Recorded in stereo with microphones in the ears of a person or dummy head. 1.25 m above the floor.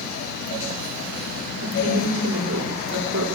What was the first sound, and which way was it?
A woman speaking, 85° right.